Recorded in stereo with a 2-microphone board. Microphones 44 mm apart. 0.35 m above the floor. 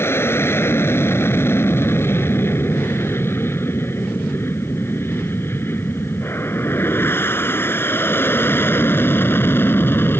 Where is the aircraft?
70° left (ahead or behind); by 10.2 s 60° left (ahead or behind).